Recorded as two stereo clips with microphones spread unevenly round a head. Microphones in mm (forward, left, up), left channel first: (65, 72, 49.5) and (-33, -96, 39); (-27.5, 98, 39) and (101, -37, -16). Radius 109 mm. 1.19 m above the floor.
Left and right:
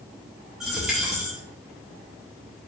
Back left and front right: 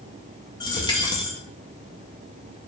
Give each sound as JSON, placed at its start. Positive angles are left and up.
{"t": 0.6, "sound": "a dropped coin", "azimuth_deg": 150, "distance_m": 0.5}